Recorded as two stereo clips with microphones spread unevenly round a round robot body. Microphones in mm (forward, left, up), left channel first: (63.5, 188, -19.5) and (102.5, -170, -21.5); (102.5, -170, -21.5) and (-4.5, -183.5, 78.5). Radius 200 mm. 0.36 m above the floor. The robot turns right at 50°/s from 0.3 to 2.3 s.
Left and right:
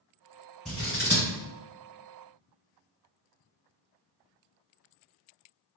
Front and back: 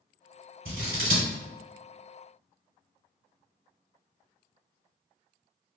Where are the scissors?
175° right, 1.3 m; by 1.3 s 145° right, 1.3 m.